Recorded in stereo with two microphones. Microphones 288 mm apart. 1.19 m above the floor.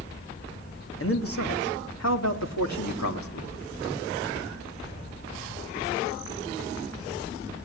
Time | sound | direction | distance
1.0 | a man speaking | 50° left (ahead or behind) | 3 m